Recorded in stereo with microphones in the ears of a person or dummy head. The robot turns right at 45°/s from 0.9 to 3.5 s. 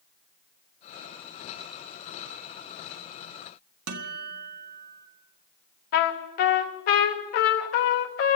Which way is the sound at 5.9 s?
40° left (ahead or behind).